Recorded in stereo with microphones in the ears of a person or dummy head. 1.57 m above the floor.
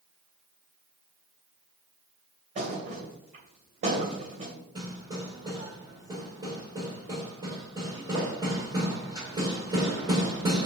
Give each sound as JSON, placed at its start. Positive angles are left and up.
{"t": 2.5, "sound": "a thud", "side_deg": -40, "distance_m": 2.5}
{"t": 4.8, "sound": "hammering", "side_deg": -25, "distance_m": 2.5}